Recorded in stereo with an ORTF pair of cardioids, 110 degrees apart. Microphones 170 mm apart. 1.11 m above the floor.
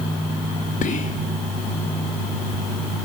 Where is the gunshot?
I don't hear a gunshot.